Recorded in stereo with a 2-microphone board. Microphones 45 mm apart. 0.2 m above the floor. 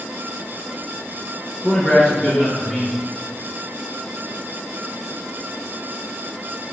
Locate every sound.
1.6 s a man speaking: 20° left (ahead or behind), 2.5 m